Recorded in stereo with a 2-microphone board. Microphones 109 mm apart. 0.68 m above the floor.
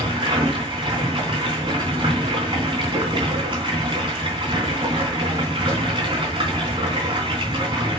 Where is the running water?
45° right (ahead or behind), 3.5 m.